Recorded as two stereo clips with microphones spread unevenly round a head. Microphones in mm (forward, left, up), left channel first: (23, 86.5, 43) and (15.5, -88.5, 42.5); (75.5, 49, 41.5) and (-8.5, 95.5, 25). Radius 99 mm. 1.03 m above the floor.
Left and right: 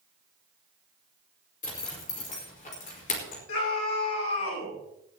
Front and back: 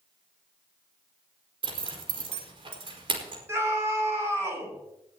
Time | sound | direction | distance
1.6 | a zipper | 135° left | 5 m
3.5 | a scream | 90° left | 7 m